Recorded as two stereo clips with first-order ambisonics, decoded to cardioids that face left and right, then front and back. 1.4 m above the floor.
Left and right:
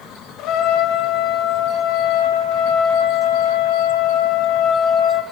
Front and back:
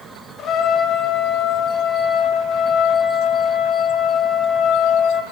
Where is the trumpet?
50° left, 0.7 m.